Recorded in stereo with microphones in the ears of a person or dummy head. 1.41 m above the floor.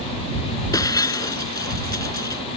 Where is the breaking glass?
15° left (ahead or behind).